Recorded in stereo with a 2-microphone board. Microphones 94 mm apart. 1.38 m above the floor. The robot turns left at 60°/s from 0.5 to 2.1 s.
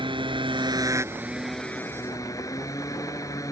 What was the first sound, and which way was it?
A motorcycle, 120° right.